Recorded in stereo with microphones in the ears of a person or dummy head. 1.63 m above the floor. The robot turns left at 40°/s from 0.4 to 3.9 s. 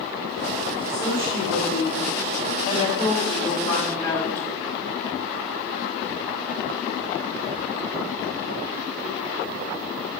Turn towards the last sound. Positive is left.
turn(degrees=15)